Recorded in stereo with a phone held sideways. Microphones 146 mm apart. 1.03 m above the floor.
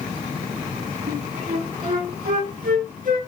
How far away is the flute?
About 1.2 m.